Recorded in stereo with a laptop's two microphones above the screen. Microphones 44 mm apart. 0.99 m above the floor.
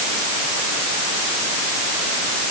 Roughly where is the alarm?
I don't hear an alarm.